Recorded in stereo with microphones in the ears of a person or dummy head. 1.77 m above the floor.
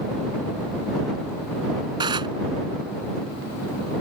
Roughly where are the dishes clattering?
Centre.